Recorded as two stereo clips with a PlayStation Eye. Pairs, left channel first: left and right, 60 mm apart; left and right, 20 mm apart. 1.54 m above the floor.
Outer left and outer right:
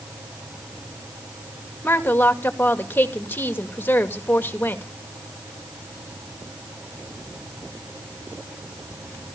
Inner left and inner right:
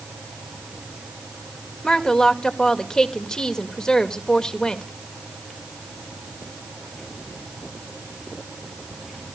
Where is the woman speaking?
35° left (ahead or behind), 2 m.